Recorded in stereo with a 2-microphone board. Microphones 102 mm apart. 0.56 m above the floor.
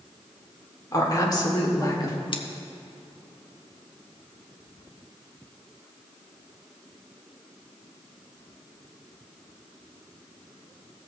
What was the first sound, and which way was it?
A woman speaking, 35° left (ahead or behind).